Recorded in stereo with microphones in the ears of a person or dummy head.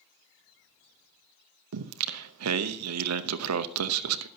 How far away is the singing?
About 0.7 m.